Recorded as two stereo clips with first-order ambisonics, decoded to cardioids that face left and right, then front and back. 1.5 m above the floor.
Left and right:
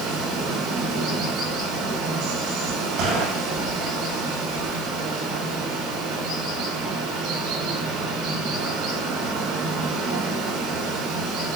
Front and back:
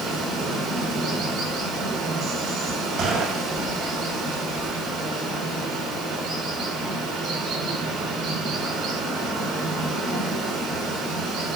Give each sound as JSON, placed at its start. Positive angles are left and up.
{"t": 0.0, "sound": "running water", "azimuth_deg": -115, "distance_m": 9.0}
{"t": 3.0, "sound": "a gunshot", "azimuth_deg": -125, "distance_m": 7.5}